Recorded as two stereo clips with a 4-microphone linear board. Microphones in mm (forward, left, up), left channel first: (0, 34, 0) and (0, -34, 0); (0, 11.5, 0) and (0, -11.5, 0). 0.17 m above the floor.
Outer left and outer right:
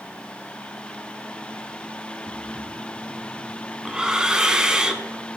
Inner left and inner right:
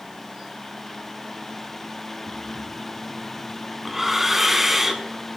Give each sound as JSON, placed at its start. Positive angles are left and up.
{"t": 2.3, "sound": "breathing", "side_deg": -10, "distance_m": 0.7}